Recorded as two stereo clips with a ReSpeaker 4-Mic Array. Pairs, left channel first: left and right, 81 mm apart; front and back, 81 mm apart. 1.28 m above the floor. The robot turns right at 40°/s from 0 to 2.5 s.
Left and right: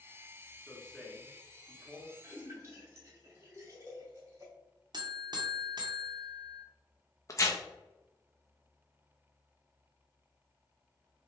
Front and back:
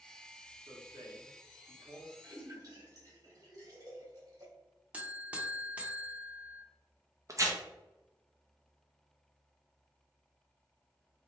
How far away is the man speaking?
About 1.1 m.